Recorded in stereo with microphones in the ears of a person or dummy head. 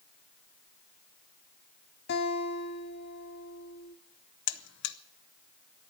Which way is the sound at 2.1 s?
65° left (ahead or behind).